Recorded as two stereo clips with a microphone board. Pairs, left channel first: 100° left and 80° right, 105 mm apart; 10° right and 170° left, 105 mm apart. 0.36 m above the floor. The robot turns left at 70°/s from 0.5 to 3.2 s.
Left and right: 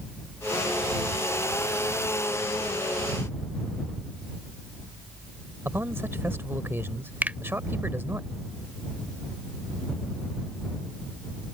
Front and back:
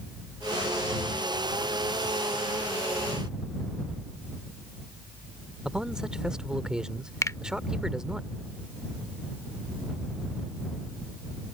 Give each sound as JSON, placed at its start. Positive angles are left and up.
{"t": 5.7, "sound": "a man speaking", "azimuth_deg": -115}
{"t": 7.2, "sound": "a finger snap", "azimuth_deg": -25}